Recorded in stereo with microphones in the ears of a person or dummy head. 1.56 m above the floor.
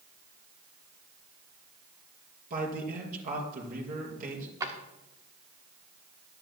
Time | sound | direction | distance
2.5 | a man speaking | 50° right (ahead or behind) | 5 m
4.6 | a drawer | 20° right (ahead or behind) | 1.4 m